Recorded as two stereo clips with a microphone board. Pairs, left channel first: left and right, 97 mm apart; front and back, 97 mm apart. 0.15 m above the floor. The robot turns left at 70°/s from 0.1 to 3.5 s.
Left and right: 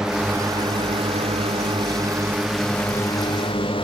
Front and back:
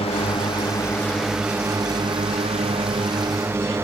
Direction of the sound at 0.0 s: 5° right.